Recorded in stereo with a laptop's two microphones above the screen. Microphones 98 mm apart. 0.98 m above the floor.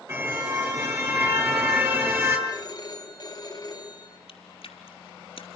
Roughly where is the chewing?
Left.